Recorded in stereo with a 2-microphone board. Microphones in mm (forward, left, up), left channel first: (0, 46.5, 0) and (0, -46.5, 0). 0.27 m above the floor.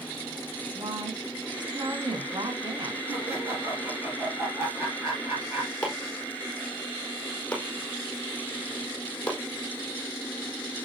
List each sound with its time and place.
0.8 s a woman speaking: 55° right (ahead or behind), 2.5 m
3.1 s laughter: 25° right (ahead or behind), 6 m
5.8 s chopping: 10° left (ahead or behind), 4.5 m